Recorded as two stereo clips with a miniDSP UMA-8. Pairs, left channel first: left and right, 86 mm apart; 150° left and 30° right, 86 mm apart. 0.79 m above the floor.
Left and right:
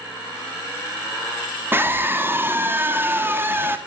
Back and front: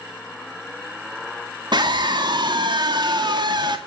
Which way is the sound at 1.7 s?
30° right.